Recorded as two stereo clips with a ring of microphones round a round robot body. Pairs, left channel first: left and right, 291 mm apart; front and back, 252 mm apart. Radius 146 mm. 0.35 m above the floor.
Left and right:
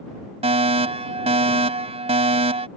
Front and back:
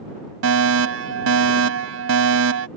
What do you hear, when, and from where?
0.4 s a fire alarm: 155° right